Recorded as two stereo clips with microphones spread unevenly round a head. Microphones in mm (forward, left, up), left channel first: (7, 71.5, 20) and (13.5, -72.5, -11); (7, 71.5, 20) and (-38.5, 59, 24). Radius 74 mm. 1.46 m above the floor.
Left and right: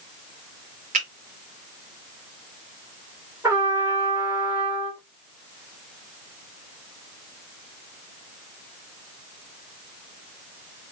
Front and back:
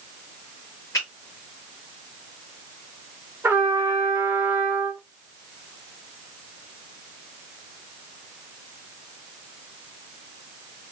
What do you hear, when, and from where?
0.9 s a finger snap: 45° right, 1.4 m
3.4 s a trumpet: 170° right, 1.2 m